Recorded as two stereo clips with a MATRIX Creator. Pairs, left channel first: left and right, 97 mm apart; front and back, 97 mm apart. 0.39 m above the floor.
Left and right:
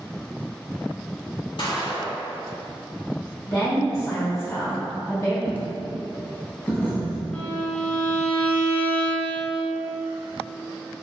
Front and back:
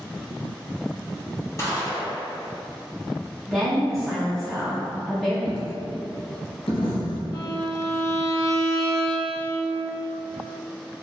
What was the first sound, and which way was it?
A gunshot, 60° left.